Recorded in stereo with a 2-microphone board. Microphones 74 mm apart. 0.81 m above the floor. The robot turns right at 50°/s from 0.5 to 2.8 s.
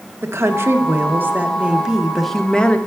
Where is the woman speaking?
85° right, 0.6 m; by 2.8 s 30° left, 0.6 m.